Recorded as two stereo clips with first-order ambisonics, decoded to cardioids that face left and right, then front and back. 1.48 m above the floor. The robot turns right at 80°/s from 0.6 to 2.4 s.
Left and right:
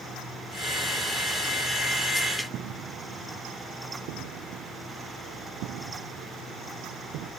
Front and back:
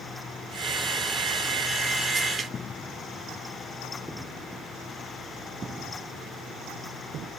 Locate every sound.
2.5 s footsteps: 65° right; by 7.3 s 125° right